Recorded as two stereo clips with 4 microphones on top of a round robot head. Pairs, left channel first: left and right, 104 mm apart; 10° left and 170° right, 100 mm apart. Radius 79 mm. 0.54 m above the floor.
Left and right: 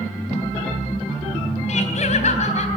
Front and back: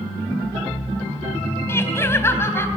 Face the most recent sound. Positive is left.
turn(degrees=75)